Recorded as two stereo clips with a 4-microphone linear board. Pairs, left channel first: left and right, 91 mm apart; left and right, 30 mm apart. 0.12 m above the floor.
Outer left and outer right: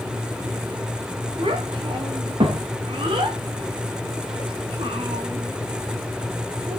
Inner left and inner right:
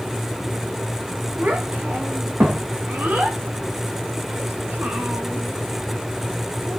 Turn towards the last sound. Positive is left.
turn(degrees=-80)